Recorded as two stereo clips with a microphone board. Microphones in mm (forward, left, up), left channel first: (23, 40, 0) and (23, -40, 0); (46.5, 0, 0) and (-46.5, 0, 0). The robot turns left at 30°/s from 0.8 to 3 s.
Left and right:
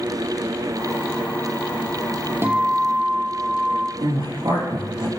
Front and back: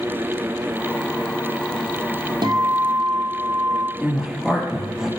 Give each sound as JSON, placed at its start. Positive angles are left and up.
{"t": 2.4, "sound": "a guitar", "azimuth_deg": -145, "distance_m": 1.1}
{"t": 4.0, "sound": "a woman speaking", "azimuth_deg": -100, "distance_m": 4.0}